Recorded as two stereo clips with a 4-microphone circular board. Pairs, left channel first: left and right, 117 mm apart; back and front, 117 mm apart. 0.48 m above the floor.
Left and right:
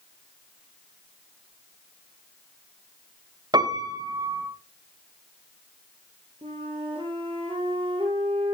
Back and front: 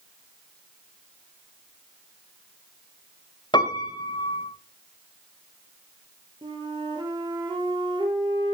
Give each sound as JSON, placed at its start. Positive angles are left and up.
{"t": 3.5, "sound": "a piano", "azimuth_deg": -135, "distance_m": 1.8}
{"t": 6.4, "sound": "a flute", "azimuth_deg": -50, "distance_m": 3.0}